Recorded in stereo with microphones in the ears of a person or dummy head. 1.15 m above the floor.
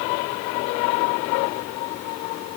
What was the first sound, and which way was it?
Only background noise.